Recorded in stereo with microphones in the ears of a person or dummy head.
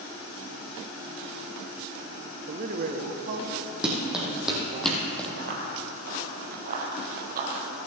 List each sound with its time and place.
2.5 s a man speaking: 45° right (ahead or behind), 1.2 m; by 4.8 s 55° right (ahead or behind), 3 m
3.8 s running footsteps: 5° right (ahead or behind), 3.5 m; by 5.3 s 5° left (ahead or behind), 2.5 m
5.4 s running footsteps: 50° right (ahead or behind), 1.6 m; by 7.9 s 45° right (ahead or behind), 2.5 m